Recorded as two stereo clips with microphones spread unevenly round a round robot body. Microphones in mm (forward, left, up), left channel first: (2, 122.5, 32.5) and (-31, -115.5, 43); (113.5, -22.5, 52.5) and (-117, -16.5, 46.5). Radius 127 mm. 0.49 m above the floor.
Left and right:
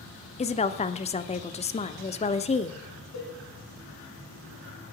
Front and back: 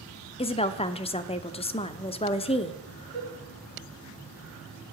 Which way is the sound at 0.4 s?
50° left.